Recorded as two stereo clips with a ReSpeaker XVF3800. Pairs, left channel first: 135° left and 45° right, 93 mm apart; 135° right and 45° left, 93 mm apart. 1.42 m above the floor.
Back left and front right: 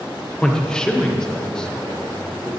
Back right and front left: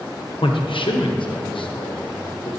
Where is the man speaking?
145° right, 1.0 m.